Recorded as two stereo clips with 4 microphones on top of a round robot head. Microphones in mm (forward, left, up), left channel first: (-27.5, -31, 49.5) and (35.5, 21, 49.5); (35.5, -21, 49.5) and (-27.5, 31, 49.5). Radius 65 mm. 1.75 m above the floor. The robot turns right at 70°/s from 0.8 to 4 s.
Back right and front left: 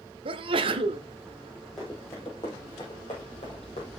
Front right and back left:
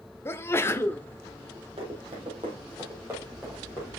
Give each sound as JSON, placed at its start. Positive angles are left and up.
{"t": 0.2, "sound": "a sneeze", "azimuth_deg": 25, "distance_m": 0.7}
{"t": 1.8, "sound": "running footsteps", "azimuth_deg": 135, "distance_m": 3.0}